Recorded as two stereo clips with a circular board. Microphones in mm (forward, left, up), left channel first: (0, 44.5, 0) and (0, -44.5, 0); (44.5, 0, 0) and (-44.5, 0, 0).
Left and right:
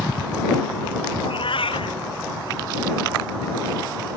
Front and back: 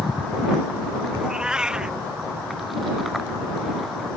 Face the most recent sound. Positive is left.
turn(degrees=100)